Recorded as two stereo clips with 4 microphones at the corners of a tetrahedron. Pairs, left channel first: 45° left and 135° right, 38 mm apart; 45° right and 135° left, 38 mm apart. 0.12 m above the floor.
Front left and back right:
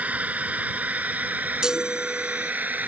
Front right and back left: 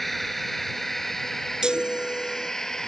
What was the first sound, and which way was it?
A drone, 130° right.